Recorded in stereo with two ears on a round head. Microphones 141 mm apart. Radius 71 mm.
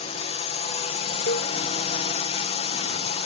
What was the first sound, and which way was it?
A drone, 40° left (ahead or behind).